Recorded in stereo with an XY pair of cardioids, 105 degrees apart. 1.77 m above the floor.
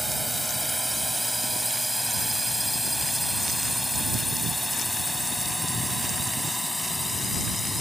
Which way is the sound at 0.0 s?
Straight ahead.